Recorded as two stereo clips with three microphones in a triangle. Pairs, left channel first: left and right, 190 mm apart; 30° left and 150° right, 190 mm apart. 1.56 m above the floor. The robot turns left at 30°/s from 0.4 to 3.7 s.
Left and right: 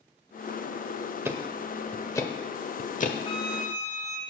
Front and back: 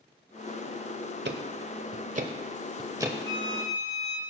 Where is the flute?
35° left, 3.5 m; by 4.2 s 20° left, 3.5 m.